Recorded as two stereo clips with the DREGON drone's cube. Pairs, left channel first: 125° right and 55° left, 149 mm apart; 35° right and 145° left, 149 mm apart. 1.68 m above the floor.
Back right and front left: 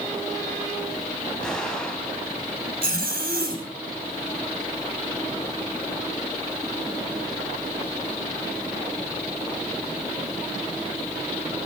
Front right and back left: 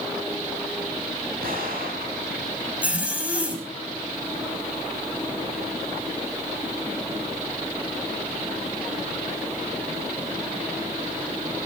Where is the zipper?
65° left, 4.5 m.